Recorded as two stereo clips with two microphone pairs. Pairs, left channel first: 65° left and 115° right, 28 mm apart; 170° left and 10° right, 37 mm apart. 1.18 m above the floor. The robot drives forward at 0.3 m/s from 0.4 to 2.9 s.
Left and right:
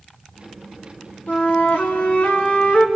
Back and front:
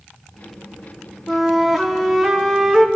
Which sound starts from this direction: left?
A flute, at 1.3 s.